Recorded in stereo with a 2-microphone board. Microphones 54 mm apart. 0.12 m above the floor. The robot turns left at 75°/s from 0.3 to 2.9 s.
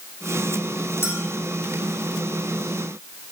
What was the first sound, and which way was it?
A clink, 45° left (ahead or behind).